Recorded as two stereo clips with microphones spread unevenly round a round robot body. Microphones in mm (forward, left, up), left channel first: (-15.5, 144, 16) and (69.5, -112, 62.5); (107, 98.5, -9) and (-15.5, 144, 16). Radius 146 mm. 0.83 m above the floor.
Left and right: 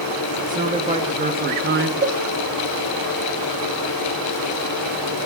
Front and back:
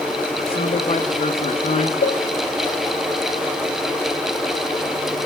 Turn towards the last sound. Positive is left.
turn(degrees=-10)